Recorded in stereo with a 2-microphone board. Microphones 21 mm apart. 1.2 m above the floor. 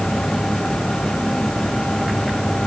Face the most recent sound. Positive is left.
No sound to turn to.